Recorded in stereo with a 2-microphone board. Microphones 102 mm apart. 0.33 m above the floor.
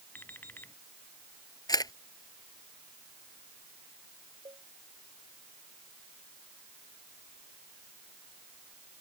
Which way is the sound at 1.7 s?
40° left (ahead or behind).